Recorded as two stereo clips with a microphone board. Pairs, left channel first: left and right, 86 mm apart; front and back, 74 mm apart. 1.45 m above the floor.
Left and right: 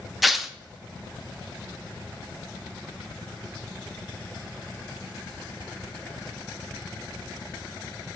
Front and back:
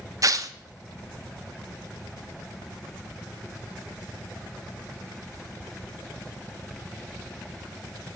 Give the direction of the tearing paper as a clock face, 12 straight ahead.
6 o'clock.